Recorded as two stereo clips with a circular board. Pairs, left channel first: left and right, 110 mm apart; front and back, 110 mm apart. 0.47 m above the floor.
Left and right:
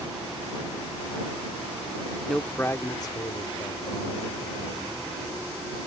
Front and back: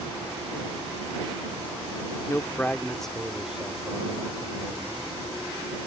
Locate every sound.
2.3 s a man speaking: 5° left; by 5.1 s 110° left